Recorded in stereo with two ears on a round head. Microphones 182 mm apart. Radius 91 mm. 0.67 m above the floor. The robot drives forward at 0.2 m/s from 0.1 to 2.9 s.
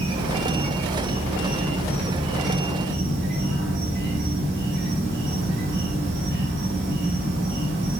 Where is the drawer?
I don't hear a drawer.